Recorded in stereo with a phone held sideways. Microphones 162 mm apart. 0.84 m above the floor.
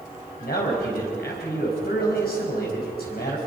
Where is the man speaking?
75° left (ahead or behind), 4.5 m.